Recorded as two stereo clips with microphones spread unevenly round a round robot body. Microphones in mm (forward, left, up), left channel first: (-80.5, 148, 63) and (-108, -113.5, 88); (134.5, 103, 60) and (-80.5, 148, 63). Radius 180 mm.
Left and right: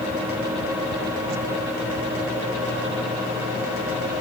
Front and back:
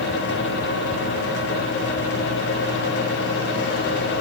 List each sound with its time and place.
Only background noise.